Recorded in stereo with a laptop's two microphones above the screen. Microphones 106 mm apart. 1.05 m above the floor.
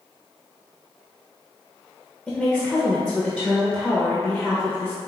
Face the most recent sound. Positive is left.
turn(degrees=0)  # may be behind; listen again after turning